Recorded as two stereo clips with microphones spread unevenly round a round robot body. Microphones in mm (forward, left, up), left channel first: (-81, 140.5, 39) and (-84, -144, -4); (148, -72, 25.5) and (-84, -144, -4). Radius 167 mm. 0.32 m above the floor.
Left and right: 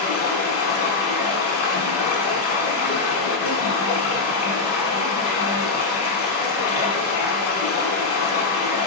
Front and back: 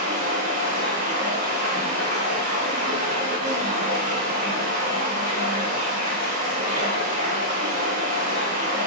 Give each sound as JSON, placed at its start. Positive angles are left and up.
{"t": 0.0, "sound": "running water", "azimuth_deg": 130, "distance_m": 1.0}